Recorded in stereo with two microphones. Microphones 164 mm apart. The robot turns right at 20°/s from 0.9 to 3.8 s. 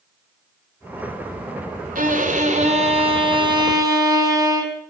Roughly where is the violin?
Ahead right.